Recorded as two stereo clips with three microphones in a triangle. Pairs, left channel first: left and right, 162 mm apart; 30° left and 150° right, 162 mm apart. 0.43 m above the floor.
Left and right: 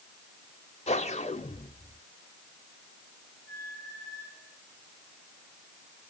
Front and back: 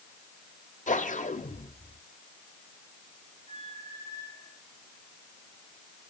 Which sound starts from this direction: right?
A squeak, at 3.5 s.